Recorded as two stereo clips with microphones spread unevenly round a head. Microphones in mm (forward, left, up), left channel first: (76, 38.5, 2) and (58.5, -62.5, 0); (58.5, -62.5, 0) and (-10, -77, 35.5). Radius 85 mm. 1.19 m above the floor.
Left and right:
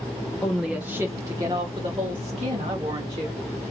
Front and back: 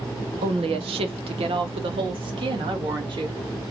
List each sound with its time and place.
0.4 s a woman speaking: 160° left, 0.6 m; by 3.4 s 150° right, 1.9 m